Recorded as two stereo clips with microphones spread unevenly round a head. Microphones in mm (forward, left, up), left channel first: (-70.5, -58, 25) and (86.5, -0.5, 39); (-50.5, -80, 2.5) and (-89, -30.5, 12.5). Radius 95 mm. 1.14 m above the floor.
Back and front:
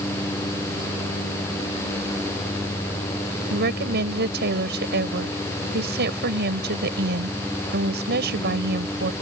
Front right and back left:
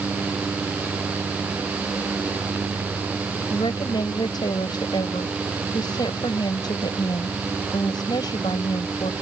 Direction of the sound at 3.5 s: 5° right.